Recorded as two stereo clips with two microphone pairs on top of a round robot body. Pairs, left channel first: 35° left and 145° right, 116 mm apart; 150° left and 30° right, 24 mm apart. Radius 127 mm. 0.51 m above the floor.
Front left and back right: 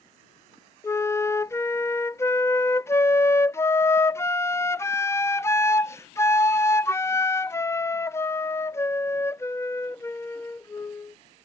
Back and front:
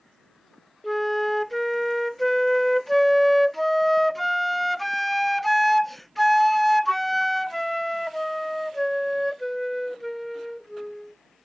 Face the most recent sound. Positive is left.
turn(degrees=70)